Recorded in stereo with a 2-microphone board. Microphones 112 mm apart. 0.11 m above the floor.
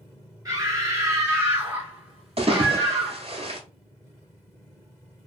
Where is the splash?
55° right (ahead or behind), 1.0 m.